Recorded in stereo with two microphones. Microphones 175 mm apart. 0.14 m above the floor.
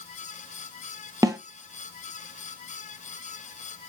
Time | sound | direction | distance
1.2 | a snare drum | 20° right (ahead or behind) | 0.7 m